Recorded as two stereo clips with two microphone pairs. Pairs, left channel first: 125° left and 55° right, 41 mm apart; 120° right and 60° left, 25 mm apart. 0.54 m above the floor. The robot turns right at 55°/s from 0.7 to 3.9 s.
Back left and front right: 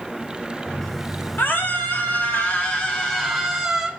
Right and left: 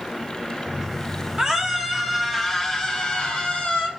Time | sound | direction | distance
1.4 | a scream | 100° left | 2 m